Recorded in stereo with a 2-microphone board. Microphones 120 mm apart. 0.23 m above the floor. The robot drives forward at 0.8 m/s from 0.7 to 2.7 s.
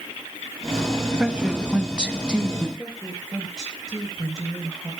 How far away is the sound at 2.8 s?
About 6 m.